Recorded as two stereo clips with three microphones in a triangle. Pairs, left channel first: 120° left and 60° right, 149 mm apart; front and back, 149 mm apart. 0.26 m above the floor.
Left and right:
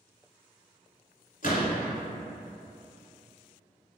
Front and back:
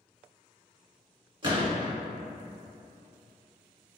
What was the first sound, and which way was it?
A gunshot, 130° left.